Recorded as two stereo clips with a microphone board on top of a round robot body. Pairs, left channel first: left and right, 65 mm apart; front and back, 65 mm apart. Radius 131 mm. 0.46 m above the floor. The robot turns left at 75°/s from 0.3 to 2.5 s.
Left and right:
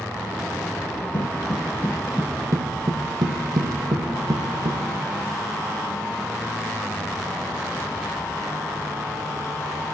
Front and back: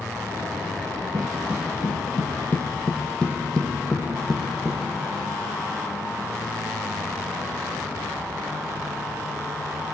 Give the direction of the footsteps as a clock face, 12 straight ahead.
8 o'clock.